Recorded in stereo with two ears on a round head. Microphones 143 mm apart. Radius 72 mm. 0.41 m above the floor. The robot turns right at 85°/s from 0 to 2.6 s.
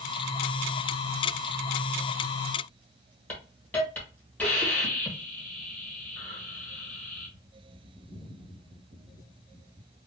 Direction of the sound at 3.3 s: 10° left (ahead or behind).